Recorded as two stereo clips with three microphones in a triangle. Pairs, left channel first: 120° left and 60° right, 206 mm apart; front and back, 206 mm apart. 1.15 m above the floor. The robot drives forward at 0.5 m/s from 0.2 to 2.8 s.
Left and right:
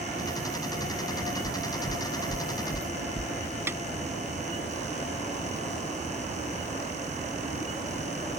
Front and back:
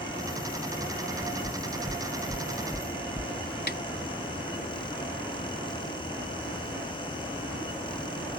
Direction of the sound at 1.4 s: 85° left.